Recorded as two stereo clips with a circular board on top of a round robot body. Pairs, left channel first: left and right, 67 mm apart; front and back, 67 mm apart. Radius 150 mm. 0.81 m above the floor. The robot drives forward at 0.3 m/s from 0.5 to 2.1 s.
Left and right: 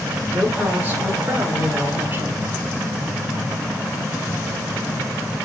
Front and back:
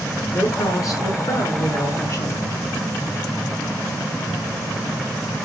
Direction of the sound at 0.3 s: 30° right.